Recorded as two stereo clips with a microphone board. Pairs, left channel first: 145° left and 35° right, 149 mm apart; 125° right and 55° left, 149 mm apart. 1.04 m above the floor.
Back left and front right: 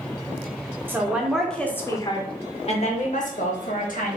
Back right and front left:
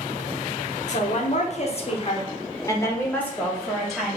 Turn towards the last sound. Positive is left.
turn(degrees=145)